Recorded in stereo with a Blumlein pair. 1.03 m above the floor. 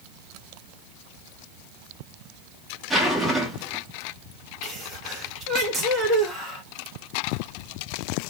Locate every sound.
2.9 s a zipper: 10° right, 1.0 m
4.6 s a sneeze: 20° right, 1.0 m